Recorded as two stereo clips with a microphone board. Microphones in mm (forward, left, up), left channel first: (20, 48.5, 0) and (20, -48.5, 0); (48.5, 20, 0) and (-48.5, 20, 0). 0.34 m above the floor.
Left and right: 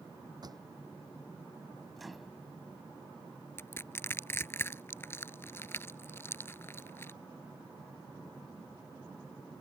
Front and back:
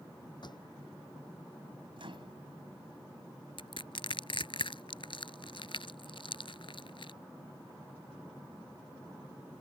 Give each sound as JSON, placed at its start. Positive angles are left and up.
{"t": 0.4, "sound": "a pop", "azimuth_deg": -40}
{"t": 2.0, "sound": "a microwave", "azimuth_deg": 180}
{"t": 3.6, "sound": "crushing", "azimuth_deg": 25}